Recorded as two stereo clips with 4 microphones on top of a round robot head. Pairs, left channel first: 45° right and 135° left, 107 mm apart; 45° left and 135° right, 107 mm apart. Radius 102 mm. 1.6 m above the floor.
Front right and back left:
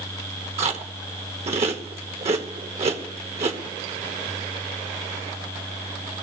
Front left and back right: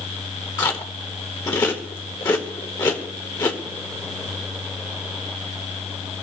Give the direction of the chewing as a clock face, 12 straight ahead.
9 o'clock.